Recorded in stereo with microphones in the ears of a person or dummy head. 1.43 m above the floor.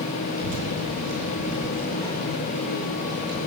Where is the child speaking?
80° right, 9 m; by 3.4 s 55° right (ahead or behind), 9.5 m.